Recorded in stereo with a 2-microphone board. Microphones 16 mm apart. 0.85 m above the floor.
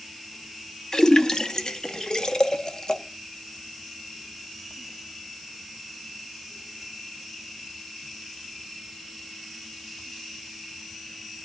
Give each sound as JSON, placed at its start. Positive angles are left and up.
{"t": 0.9, "sound": "a splash", "side_deg": 45, "distance_m": 0.7}